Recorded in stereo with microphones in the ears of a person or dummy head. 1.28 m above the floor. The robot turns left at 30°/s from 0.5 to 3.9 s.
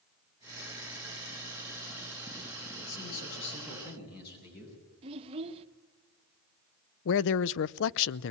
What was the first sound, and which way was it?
A man speaking, 95° left.